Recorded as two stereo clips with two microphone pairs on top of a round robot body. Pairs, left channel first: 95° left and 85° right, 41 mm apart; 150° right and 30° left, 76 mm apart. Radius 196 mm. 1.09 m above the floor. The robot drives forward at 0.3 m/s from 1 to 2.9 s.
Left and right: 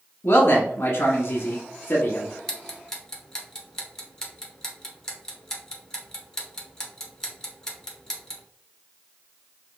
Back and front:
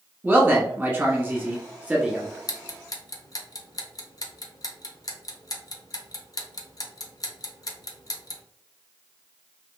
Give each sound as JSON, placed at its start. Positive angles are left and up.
{"t": 0.2, "sound": "a man speaking", "azimuth_deg": 105, "distance_m": 1.3}
{"t": 2.5, "sound": "ticking", "azimuth_deg": 170, "distance_m": 0.6}